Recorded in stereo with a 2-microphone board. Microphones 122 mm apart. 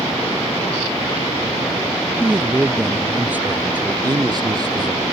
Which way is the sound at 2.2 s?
10° right (ahead or behind).